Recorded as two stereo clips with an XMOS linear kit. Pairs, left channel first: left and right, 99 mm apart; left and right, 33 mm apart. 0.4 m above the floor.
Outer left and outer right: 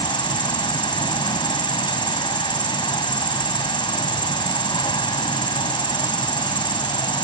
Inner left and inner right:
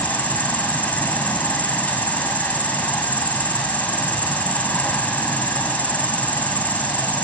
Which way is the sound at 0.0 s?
55° left (ahead or behind).